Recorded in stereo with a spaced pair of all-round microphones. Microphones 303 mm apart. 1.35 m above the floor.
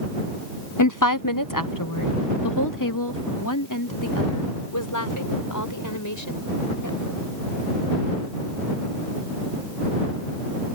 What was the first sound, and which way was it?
A woman speaking, 60° left (ahead or behind).